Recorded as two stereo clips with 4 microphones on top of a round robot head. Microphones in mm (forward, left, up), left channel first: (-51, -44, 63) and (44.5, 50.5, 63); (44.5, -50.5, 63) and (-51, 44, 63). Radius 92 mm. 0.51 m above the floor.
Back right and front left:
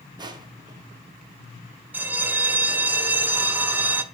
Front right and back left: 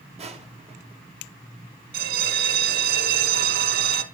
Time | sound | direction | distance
0.2 | crushing | 100° left | 2 m
1.9 | a bell | 120° left | 1.1 m